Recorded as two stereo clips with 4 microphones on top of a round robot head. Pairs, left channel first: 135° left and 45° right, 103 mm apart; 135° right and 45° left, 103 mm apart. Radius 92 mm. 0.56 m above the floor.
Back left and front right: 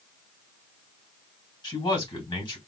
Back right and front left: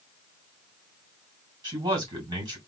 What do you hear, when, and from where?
1.6 s a man speaking: 95° left, 3 m